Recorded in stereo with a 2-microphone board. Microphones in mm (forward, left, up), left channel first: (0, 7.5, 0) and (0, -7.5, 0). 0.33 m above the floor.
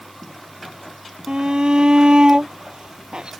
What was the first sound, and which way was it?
A shout, 65° right (ahead or behind).